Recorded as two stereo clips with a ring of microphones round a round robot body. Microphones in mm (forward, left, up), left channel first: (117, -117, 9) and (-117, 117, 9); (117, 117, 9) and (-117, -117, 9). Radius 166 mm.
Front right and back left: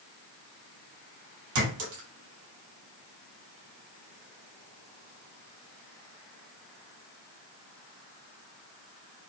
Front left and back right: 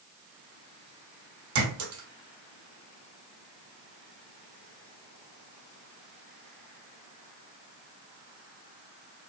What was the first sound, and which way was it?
A clink, 175° right.